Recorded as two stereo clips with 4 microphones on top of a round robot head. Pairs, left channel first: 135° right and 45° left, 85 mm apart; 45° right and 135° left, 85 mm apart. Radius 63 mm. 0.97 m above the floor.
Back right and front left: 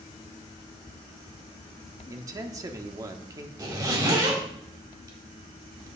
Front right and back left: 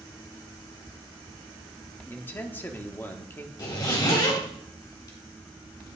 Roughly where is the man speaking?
Ahead.